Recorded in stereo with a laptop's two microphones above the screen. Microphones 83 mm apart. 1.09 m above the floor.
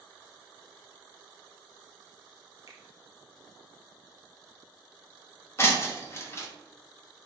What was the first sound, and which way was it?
A finger snap, 40° right (ahead or behind).